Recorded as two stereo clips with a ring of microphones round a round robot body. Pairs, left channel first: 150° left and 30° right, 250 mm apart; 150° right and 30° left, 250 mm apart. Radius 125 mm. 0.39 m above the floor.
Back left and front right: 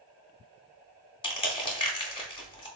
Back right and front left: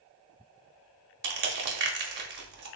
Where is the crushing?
80° left, 0.6 m.